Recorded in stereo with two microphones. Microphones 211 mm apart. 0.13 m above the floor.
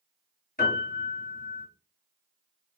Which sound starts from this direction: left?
A piano, at 0.6 s.